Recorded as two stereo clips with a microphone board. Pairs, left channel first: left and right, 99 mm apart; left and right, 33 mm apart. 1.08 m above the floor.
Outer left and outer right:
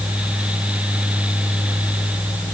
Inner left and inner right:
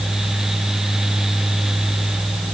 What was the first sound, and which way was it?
Only background noise.